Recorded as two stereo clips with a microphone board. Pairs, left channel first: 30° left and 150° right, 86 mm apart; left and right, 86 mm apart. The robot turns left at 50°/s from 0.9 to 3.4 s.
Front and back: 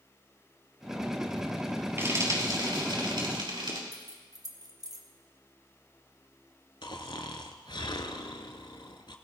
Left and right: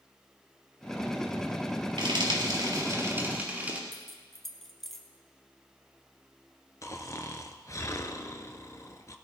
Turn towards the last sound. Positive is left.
turn(degrees=40)